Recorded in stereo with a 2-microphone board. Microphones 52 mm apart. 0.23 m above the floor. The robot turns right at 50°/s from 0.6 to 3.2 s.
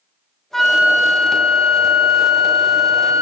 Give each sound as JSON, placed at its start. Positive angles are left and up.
{"t": 0.5, "sound": "a flute", "azimuth_deg": 170, "distance_m": 0.6}